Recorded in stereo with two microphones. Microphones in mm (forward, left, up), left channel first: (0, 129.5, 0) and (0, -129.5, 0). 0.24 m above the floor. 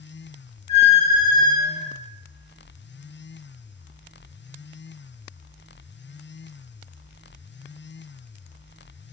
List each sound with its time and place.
0.7 s a squeak: 25° right (ahead or behind), 0.8 m